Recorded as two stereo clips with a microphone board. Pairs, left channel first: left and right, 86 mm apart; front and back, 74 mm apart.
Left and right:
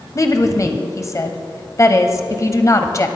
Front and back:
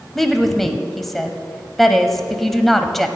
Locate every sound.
0.1 s a woman speaking: 85° left, 1.1 m